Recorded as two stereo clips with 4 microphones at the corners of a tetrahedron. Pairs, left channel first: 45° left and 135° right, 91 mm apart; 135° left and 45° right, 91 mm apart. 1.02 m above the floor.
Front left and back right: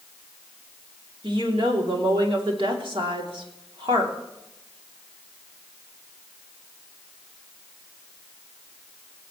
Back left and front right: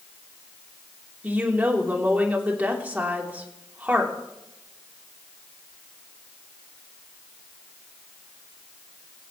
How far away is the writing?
I don't hear writing.